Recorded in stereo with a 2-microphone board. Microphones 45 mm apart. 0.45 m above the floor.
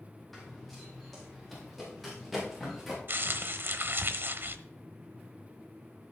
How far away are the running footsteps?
About 5 m.